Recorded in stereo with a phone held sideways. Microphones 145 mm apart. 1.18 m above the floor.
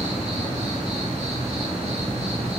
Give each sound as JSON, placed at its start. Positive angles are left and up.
{"t": 0.0, "sound": "an insect", "side_deg": -50, "distance_m": 0.9}